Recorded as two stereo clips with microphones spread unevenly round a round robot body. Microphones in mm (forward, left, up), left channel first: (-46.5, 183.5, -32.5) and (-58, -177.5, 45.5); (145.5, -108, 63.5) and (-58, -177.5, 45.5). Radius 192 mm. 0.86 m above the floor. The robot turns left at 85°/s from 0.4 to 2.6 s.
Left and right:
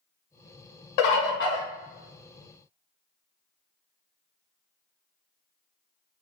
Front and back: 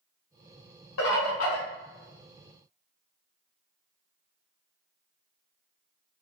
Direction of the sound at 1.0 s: 60° left.